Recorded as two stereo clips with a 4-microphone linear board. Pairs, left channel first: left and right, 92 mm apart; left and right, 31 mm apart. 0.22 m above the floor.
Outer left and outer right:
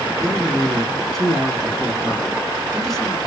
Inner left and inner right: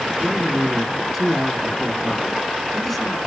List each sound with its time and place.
0.2 s a man speaking: 5° left (ahead or behind), 2.0 m